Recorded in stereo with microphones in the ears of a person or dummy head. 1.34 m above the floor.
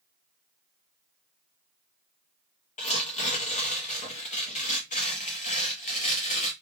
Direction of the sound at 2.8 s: 35° left (ahead or behind).